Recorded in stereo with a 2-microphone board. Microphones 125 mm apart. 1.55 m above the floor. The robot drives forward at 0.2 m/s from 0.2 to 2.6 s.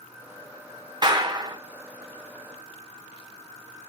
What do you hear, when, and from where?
1.0 s a clap: 35° right (ahead or behind), 1.0 m; by 1.6 s 30° right (ahead or behind), 1.1 m